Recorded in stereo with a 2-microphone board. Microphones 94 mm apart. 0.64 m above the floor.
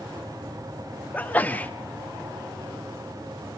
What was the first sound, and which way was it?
A sneeze, 20° left (ahead or behind).